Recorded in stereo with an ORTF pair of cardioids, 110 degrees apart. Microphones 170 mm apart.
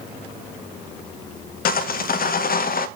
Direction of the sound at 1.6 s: 60° left.